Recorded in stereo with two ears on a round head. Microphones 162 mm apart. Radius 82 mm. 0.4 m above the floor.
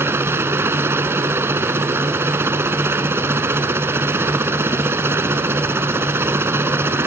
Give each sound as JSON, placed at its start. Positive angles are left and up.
{"t": 0.0, "sound": "a helicopter", "side_deg": -15}